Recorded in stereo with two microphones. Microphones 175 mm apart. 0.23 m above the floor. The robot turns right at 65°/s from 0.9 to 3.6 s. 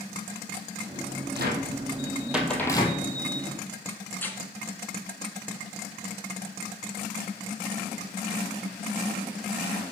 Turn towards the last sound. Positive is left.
turn(degrees=10)  # may be behind; listen again after turning